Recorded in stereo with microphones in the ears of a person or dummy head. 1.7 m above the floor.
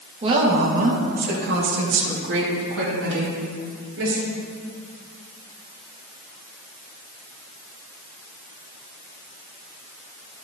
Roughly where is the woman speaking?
Right.